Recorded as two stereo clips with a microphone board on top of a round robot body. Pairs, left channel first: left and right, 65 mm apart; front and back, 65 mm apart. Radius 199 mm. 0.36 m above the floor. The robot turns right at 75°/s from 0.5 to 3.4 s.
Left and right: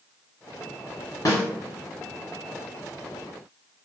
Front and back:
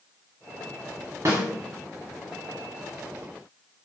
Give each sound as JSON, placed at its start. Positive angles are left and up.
{"t": 1.2, "sound": "a snare drum", "azimuth_deg": 130, "distance_m": 0.8}